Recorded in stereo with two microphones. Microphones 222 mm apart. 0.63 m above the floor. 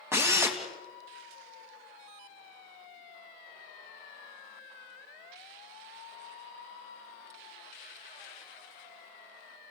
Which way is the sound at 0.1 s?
10° right (ahead or behind).